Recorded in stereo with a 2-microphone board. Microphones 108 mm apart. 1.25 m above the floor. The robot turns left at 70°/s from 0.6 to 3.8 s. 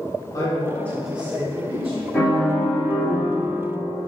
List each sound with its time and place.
0.3 s a man speaking: 30° left, 1.5 m; by 2.0 s 65° right, 1.5 m
2.1 s a piano: straight behind, 2 m; by 3.6 s 80° left, 2 m